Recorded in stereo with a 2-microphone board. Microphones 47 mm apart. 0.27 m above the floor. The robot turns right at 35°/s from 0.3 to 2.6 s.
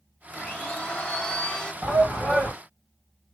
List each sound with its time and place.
0.3 s a blender: 20° left (ahead or behind), 0.7 m
1.8 s a shout: 30° right (ahead or behind), 2 m; by 2.5 s 45° right (ahead or behind), 2 m